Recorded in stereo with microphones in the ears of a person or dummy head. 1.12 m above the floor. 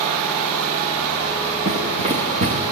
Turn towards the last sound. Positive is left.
turn(degrees=-35)  # may be behind; listen again after turning